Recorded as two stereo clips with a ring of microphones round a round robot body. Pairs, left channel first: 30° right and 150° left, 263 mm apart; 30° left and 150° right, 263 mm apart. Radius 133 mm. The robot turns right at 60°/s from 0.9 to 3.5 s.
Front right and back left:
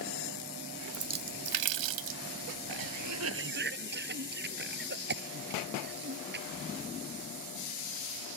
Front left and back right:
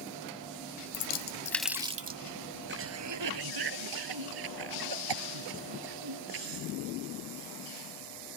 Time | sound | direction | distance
0.9 | a splash | 80° left | ?
2.7 | a cough | 155° left | ?